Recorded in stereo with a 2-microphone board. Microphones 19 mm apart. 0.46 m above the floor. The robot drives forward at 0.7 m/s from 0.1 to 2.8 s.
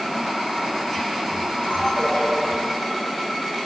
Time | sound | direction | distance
1.6 | a ringtone | 70° left (ahead or behind) | 6 m